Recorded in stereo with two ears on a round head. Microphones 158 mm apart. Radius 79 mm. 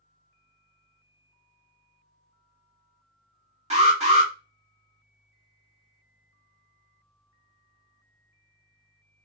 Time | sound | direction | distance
3.7 | an alarm | 35° right (ahead or behind) | 1.9 m